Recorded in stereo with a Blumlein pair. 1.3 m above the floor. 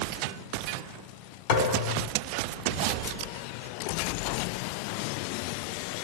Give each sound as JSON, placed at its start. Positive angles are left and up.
{"t": 1.5, "sound": "a thud", "azimuth_deg": 50, "distance_m": 2.5}